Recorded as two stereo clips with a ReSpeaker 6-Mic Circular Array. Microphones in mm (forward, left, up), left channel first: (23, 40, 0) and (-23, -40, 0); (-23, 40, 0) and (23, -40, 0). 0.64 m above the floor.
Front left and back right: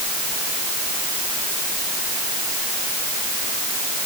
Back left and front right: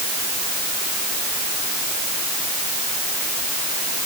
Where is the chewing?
No chewing in this recording.